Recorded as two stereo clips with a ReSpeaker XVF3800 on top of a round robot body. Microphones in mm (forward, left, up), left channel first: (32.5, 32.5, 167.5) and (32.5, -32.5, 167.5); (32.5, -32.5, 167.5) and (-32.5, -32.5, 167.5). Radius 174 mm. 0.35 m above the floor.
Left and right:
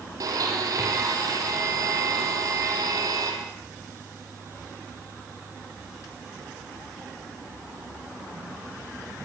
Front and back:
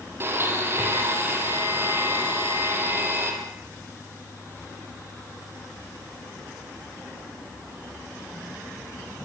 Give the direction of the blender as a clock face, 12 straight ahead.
4 o'clock.